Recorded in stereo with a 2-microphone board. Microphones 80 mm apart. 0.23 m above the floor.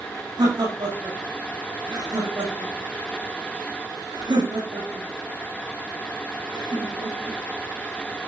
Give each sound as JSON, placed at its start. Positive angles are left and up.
{"t": 0.4, "sound": "laughter", "side_deg": -80, "distance_m": 8.5}